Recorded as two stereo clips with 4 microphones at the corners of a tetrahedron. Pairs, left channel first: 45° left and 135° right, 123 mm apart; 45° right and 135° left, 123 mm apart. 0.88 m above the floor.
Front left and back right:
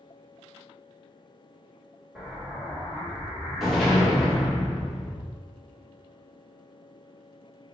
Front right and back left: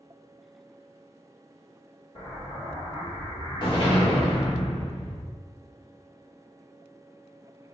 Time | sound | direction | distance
2.1 | an explosion | 45° right | 1.2 m